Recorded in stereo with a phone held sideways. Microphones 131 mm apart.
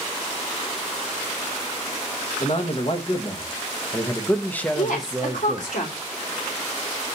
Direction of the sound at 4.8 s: 85° left.